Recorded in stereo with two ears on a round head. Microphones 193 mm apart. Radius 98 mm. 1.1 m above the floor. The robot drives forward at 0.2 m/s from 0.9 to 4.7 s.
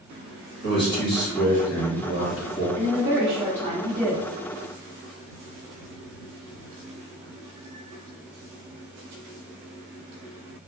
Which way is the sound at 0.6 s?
50° left (ahead or behind).